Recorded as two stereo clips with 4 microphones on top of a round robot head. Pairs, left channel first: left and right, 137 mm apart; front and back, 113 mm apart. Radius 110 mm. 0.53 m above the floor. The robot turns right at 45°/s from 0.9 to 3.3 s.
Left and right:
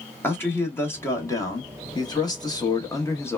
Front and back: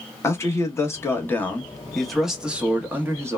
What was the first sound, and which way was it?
A man speaking, 35° left.